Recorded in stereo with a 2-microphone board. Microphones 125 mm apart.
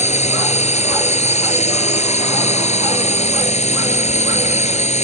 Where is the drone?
65° left (ahead or behind).